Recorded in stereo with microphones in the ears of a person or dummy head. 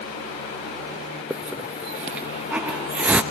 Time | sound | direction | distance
1.3 | a hiss | 10° right (ahead or behind) | 0.6 m